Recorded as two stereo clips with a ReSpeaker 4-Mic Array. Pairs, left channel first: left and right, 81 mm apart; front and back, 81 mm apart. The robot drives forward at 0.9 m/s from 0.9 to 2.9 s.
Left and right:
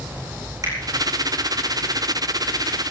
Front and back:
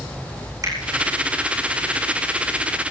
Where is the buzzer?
I don't hear a buzzer.